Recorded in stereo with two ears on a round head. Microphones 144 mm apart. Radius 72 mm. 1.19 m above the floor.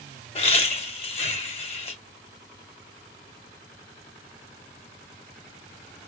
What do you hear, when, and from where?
0.3 s laughter: 40° left (ahead or behind), 1.8 m